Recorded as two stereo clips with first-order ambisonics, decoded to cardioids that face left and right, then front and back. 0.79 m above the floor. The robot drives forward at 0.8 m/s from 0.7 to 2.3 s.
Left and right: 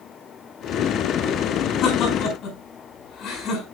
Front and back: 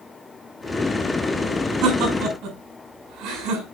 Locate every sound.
1.8 s laughter: 140° left, 5.5 m